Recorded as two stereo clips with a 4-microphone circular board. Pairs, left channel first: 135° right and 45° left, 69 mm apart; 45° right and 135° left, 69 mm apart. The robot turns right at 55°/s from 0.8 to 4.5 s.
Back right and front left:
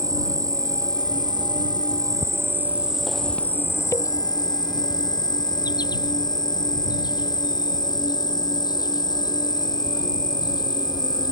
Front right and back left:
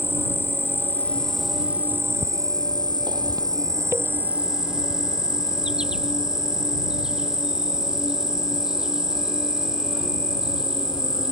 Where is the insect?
10° left; by 11.3 s 145° right.